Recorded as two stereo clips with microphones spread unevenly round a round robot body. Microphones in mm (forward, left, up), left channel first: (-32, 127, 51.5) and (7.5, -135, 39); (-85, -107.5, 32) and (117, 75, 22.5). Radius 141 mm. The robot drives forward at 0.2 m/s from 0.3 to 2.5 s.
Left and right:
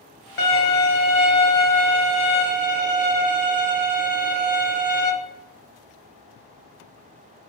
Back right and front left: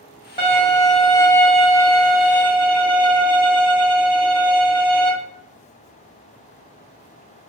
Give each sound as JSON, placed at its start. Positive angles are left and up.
{"t": 0.4, "sound": "a violin", "azimuth_deg": 150, "distance_m": 0.9}